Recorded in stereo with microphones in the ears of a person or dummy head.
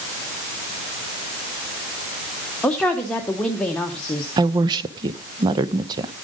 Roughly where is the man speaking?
Centre.